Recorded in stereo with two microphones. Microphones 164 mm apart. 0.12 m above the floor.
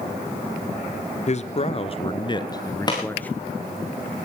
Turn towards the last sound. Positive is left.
turn(degrees=25)  # may be behind; listen again after turning